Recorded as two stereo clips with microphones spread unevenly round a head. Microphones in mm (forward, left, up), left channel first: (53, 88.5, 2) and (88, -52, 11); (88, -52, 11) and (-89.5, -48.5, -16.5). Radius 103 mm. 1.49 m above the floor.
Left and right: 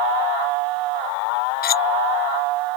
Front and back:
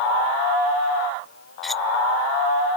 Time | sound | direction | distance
1.6 | cutlery clinking | 85° left | ?